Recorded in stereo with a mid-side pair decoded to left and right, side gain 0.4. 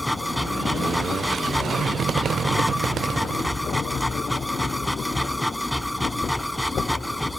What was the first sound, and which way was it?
A machine running, 5° left.